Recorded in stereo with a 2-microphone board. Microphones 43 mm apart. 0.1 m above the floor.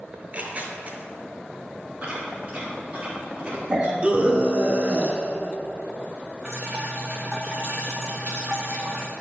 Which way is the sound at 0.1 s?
35° right (ahead or behind).